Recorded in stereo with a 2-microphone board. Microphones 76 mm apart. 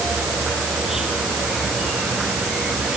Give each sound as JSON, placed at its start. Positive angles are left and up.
{"t": 0.0, "sound": "an insect", "side_deg": -5}